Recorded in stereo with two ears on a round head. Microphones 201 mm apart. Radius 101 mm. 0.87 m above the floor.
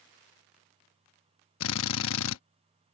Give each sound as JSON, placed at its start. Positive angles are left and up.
{"t": 1.6, "sound": "a drill", "side_deg": 65}